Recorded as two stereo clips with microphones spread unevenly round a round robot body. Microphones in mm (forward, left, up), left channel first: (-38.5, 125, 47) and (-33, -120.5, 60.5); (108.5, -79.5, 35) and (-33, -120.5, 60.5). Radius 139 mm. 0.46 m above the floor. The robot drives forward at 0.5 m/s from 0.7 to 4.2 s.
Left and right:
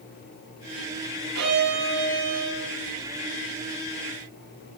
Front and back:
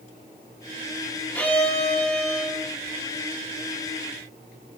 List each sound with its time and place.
1.4 s a violin: 65° right, 8.5 m